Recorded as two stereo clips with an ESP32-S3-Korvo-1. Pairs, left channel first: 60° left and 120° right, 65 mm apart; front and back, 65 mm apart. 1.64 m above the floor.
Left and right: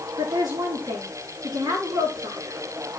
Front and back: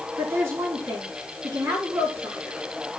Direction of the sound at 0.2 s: 135° right.